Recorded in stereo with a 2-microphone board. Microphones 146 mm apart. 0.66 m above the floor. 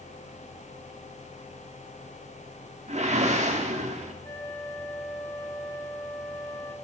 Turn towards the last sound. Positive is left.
turn(degrees=20)  # may be behind; listen again after turning